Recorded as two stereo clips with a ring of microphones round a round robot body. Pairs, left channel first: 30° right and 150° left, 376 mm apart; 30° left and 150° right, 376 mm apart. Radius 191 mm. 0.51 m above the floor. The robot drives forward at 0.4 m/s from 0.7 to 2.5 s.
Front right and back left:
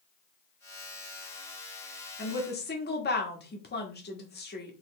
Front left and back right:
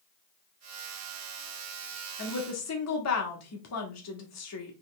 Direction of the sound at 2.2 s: 15° left.